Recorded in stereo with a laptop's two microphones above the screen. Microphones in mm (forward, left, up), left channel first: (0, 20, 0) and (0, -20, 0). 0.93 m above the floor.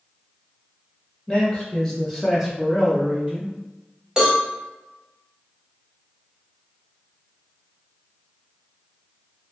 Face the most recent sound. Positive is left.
turn(degrees=-15)  # may be behind; listen again after turning